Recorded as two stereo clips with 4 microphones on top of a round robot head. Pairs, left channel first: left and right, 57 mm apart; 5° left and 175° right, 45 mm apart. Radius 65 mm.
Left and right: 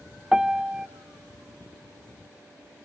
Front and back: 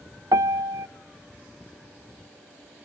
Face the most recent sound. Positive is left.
turn(degrees=-170)